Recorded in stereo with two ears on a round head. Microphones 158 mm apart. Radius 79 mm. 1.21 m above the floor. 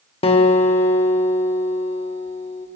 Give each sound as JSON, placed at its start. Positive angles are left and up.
{"t": 0.2, "sound": "a guitar", "side_deg": 35, "distance_m": 1.5}